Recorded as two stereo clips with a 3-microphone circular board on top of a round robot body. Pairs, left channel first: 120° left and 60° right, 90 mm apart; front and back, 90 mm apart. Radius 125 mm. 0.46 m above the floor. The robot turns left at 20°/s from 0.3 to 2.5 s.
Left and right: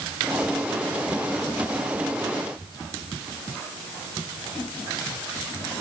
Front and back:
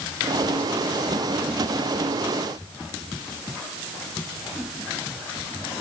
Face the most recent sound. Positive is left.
No sound to turn to.